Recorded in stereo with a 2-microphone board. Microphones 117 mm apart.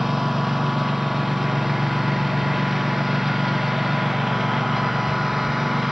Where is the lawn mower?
Centre (ahead or behind).